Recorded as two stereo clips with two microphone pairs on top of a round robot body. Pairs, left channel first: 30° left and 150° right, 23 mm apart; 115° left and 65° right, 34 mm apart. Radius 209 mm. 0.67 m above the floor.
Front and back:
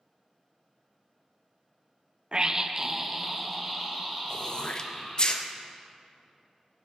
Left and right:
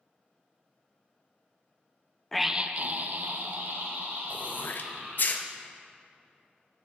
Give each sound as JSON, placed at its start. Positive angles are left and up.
{"t": 2.3, "sound": "a scream", "azimuth_deg": -150, "distance_m": 0.5}
{"t": 4.3, "sound": "throat clearing", "azimuth_deg": 80, "distance_m": 0.6}